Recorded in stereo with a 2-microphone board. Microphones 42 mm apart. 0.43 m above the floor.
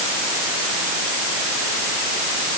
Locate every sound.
Only background noise.